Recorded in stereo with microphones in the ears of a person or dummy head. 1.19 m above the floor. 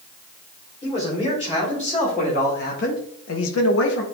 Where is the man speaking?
35° left (ahead or behind), 3.5 m; by 4.0 s 55° left (ahead or behind), 1.0 m.